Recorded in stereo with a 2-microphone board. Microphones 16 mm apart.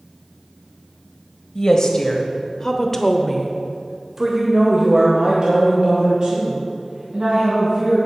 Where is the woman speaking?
40° left (ahead or behind), 1.4 m; by 8.0 s 45° right (ahead or behind), 3 m.